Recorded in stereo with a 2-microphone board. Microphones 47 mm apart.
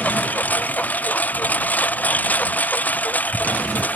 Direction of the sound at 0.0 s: 35° left (ahead or behind).